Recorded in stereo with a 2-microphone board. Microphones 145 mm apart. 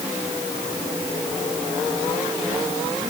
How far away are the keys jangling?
I don't hear keys jangling.